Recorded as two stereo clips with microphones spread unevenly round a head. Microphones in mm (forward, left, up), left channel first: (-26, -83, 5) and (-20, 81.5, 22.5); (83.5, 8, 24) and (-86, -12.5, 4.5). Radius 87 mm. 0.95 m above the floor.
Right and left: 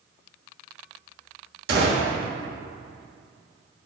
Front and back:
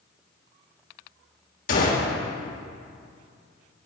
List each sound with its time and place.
1.7 s a gunshot: 50° left, 1.6 m